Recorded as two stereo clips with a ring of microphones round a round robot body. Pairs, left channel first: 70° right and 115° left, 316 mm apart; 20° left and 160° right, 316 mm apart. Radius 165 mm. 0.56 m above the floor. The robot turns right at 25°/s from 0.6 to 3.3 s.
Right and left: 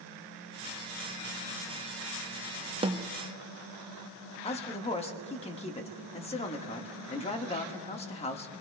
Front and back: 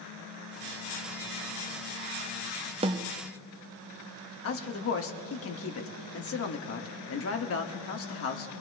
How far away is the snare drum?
About 0.5 m.